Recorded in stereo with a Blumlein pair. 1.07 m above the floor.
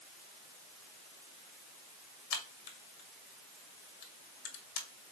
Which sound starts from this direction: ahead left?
A crack, at 2.3 s.